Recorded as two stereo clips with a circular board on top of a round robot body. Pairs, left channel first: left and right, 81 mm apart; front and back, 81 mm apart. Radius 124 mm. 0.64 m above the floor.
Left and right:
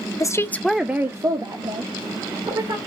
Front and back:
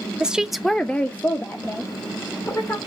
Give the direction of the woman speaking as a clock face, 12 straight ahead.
8 o'clock.